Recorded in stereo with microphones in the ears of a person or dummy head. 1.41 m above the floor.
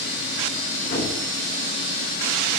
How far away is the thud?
About 2.5 m.